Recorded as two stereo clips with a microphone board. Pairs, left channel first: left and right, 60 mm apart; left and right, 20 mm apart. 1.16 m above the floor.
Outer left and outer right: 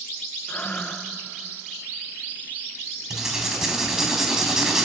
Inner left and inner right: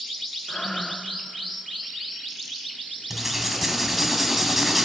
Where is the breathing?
30° left (ahead or behind), 1.2 m.